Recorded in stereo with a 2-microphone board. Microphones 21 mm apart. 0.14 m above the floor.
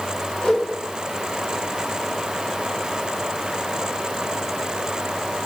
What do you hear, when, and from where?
0.4 s a whoosh: 55° left (ahead or behind), 2.5 m